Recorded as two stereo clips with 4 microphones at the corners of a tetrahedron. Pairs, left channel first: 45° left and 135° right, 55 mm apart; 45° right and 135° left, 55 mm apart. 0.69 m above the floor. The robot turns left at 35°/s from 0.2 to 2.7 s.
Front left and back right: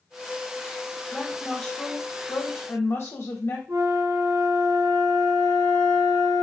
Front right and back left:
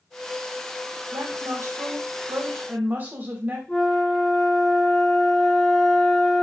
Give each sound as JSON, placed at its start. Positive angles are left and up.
{"t": 1.1, "sound": "a woman speaking", "azimuth_deg": 135, "distance_m": 1.4}
{"t": 3.7, "sound": "a flute", "azimuth_deg": -120, "distance_m": 1.4}